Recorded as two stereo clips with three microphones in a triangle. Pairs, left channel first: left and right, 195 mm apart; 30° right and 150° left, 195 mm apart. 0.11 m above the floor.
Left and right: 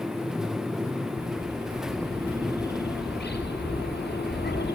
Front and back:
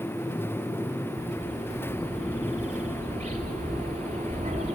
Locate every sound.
1.2 s a bird: 100° left, 2 m